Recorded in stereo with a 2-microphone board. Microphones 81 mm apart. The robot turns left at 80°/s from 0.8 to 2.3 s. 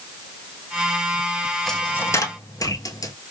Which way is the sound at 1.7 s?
5° left (ahead or behind).